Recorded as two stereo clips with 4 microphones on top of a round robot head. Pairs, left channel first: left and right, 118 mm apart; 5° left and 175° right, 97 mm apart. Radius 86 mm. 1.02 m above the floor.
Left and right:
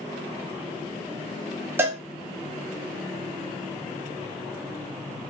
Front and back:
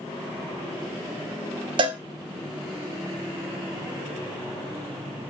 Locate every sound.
1.8 s a cowbell: 160° right, 0.6 m